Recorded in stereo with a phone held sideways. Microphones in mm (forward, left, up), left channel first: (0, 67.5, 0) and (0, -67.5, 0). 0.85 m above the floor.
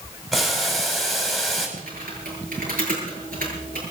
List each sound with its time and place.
0.3 s boiling: centre (ahead or behind), 4 m
1.8 s typing on a keyboard: 85° right, 7 m